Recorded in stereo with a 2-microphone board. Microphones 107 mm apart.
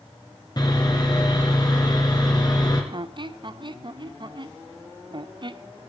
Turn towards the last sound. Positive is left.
turn(degrees=-45)  # may be behind; listen again after turning